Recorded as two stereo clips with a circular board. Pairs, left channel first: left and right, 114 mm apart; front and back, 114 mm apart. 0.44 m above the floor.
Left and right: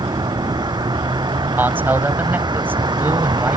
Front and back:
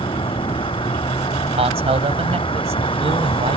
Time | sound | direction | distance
0.0 | a vehicle | 40° right | ?
1.6 | a man speaking | 160° right | ?